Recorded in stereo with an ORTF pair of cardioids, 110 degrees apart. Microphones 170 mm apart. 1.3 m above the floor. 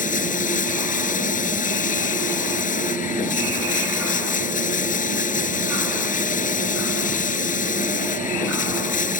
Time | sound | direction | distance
0.0 | running water | 55° left | ?